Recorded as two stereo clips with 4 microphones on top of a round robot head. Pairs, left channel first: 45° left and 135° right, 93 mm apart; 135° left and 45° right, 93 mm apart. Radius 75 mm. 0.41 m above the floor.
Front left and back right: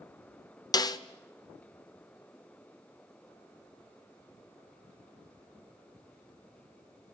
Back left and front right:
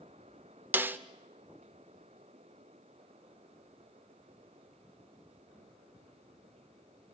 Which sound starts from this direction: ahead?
A snare drum, at 0.7 s.